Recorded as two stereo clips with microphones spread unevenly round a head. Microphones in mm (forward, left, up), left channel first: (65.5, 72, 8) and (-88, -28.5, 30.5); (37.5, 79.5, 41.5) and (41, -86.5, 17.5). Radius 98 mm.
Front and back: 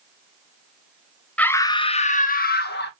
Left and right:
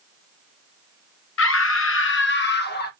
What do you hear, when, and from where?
1.4 s a scream: 115° left, 0.7 m; by 2.9 s 65° left, 1.1 m